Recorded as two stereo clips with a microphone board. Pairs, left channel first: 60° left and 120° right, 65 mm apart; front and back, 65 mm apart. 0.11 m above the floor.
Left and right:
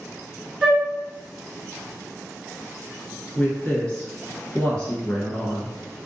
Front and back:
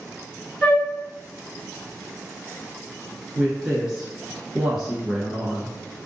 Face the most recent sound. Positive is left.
turn(degrees=110)